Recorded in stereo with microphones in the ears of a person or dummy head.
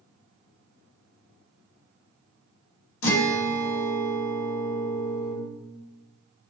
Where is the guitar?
85° left, 1.2 m.